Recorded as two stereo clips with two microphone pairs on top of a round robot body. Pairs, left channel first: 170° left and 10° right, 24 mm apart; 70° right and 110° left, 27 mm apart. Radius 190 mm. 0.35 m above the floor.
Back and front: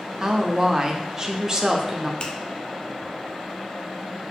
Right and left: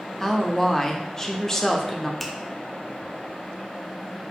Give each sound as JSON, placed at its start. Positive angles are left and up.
{"t": 0.2, "sound": "a woman speaking", "azimuth_deg": -15, "distance_m": 0.8}
{"t": 2.2, "sound": "a finger snap", "azimuth_deg": -155, "distance_m": 0.7}